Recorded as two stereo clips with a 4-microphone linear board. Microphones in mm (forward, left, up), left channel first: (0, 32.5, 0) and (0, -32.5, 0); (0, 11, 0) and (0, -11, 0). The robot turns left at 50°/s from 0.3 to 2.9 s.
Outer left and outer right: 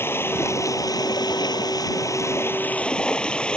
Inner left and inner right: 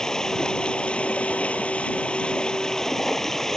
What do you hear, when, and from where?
0.0 s running water: 145° left; by 3.6 s 15° left